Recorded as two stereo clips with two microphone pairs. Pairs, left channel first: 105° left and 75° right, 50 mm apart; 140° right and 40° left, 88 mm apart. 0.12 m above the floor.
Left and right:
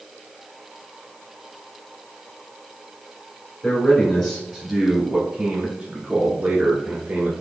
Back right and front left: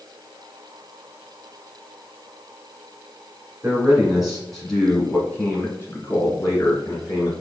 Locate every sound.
3.6 s a man speaking: 90° left, 1.6 m; by 7.3 s 115° right, 2.5 m